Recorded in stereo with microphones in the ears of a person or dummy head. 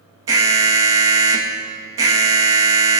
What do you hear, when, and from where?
0.3 s an alarm: 20° right (ahead or behind), 2 m